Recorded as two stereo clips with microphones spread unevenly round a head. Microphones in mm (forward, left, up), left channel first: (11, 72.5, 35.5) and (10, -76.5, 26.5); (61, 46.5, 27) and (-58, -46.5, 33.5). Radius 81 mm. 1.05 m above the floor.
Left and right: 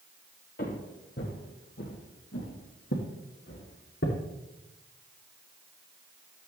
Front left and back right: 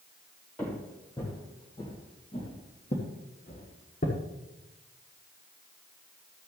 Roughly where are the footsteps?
Behind left.